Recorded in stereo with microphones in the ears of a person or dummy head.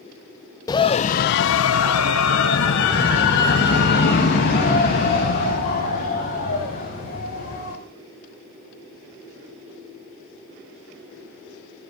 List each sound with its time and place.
0.7 s a scream: 15° left (ahead or behind), 0.7 m; by 7.7 s 45° left (ahead or behind), 5 m